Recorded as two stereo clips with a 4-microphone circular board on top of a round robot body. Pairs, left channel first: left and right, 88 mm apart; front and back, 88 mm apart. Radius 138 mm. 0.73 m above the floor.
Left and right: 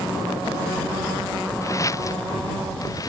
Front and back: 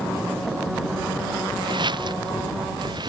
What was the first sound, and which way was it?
Footsteps, 145° left.